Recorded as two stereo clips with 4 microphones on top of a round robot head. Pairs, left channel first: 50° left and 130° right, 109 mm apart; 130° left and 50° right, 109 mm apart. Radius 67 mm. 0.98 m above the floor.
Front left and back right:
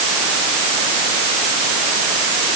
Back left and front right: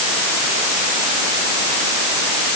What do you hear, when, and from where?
Only background noise.